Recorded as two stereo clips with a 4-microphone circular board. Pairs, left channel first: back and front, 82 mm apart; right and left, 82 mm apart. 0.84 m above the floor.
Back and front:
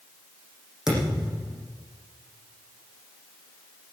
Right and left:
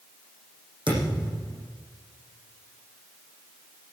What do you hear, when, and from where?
0.9 s a thud: 85° left, 8.5 m